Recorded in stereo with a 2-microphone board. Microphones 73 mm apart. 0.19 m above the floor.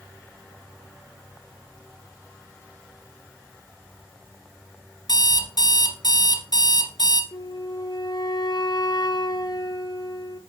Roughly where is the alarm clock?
Left.